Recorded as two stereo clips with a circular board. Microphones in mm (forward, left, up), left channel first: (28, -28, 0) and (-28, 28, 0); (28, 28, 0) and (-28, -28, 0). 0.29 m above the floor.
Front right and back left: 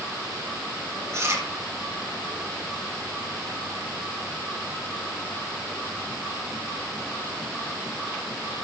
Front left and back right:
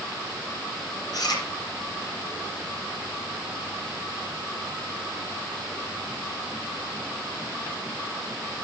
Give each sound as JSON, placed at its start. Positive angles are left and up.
{"t": 1.1, "sound": "chewing", "azimuth_deg": 80, "distance_m": 4.0}